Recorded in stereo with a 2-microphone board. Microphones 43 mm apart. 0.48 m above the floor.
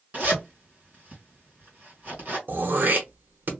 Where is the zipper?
45° right (ahead or behind), 2 m.